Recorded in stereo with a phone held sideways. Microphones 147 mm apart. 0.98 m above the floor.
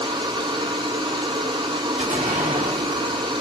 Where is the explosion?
60° right (ahead or behind), 2 m.